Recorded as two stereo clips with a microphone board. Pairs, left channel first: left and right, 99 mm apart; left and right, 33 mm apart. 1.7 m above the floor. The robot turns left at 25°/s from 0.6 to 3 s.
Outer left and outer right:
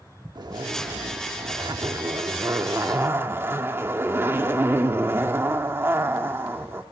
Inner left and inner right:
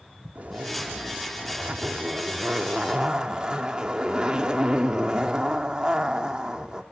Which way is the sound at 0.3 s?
85° right.